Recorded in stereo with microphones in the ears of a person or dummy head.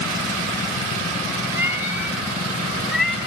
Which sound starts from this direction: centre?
A cat meowing, at 1.5 s.